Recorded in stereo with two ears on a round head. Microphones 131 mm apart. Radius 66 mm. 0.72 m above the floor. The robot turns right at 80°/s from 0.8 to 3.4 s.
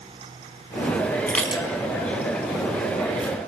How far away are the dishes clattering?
About 4 m.